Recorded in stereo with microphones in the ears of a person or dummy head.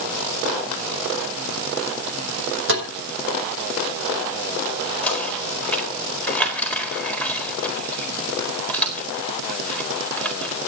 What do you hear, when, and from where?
2.7 s tapping: 65° right (ahead or behind), 6 m
5.0 s knocking: 10° left (ahead or behind), 4 m